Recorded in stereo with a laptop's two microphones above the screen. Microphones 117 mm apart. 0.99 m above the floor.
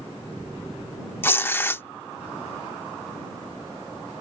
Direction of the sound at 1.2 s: 20° left (ahead or behind).